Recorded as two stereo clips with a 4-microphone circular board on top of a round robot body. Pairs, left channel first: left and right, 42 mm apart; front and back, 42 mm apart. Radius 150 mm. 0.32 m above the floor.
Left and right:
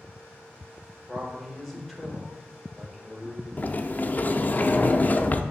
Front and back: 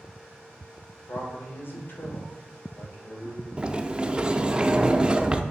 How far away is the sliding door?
About 0.7 m.